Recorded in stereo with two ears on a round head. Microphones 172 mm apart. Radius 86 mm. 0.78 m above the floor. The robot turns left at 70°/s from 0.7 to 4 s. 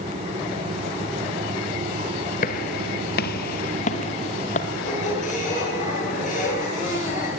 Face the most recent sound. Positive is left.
turn(degrees=40)  # may be behind; listen again after turning